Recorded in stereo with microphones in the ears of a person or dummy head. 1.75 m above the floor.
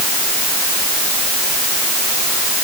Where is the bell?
No bell in this recording.